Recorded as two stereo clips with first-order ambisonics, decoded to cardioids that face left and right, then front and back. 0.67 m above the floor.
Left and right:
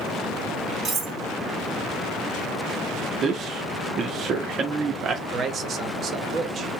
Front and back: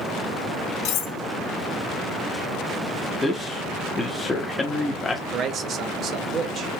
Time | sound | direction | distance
0.8 | cutlery clinking | 25° right | 1.2 m
3.2 | a man speaking | 70° right | 0.6 m
5.3 | a man speaking | 135° right | 0.7 m